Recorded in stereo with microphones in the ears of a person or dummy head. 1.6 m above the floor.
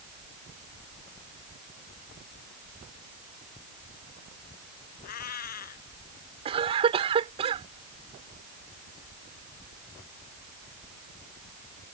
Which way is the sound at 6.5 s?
35° right (ahead or behind).